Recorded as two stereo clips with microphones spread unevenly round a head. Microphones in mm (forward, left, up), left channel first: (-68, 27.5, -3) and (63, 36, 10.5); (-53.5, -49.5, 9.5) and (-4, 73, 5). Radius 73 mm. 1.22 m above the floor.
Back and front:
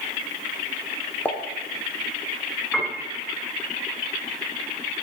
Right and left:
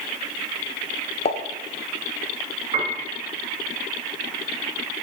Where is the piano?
100° left, 1.9 m.